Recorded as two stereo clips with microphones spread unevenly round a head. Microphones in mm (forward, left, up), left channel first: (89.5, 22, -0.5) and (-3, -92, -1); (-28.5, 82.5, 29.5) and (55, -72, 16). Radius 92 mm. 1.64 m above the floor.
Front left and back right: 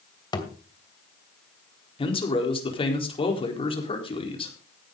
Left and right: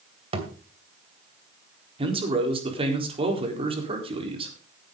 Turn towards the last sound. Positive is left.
turn(degrees=0)